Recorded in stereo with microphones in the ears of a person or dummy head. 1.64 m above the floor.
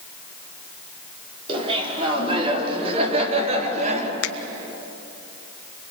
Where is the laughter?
30° right (ahead or behind), 5.5 m; by 4.1 s 40° right (ahead or behind), 4 m.